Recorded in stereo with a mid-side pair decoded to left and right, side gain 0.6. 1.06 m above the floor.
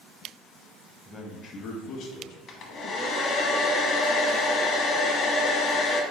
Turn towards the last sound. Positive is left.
turn(degrees=50)